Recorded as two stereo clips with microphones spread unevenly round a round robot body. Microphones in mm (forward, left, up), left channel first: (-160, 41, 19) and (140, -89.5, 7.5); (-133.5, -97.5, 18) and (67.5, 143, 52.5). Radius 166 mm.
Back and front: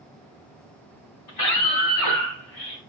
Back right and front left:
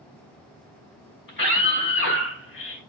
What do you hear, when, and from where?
1.3 s a scream: 175° left, 5 m; by 2.8 s straight behind, 3.5 m